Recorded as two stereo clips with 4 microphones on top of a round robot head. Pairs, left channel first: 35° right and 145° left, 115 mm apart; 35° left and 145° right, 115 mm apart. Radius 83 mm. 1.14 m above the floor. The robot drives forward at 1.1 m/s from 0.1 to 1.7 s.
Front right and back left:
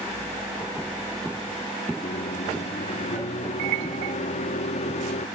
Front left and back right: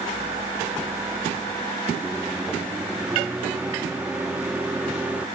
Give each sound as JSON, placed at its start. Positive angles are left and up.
{"t": 2.0, "sound": "a microwave", "azimuth_deg": -65}